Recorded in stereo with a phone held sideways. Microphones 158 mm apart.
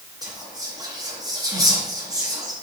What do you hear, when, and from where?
0.2 s whispering: 20° right (ahead or behind), 0.8 m